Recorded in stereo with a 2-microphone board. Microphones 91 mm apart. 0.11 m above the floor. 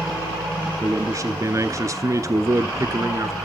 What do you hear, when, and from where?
0.8 s a man speaking: 35° right (ahead or behind), 1.3 m